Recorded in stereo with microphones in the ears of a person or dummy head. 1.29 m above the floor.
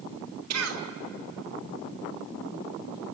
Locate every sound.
0.5 s a cough: 85° right, 3 m